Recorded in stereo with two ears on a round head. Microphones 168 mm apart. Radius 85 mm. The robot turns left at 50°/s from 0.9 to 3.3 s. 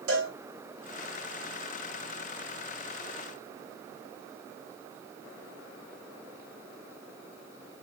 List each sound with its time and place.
0.1 s a cowbell: 85° right, 2 m